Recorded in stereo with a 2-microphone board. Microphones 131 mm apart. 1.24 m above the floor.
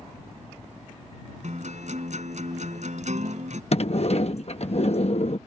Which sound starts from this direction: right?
A guitar, at 1.4 s.